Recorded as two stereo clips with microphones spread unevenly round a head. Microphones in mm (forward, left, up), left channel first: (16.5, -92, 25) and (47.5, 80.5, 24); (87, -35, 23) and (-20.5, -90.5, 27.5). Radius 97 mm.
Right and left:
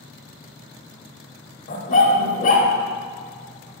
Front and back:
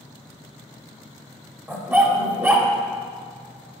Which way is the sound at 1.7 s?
90° right.